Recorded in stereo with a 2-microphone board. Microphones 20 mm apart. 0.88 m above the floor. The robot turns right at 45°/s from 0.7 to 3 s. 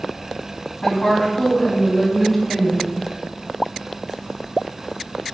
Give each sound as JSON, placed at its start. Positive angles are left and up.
{"t": 0.8, "sound": "a woman speaking", "azimuth_deg": 95, "distance_m": 0.9}